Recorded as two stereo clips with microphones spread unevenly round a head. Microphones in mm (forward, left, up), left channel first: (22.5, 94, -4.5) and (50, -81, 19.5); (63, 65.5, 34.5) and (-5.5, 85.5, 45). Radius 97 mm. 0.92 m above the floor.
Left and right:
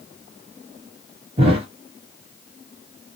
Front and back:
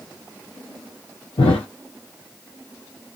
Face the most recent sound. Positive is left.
turn(degrees=-35)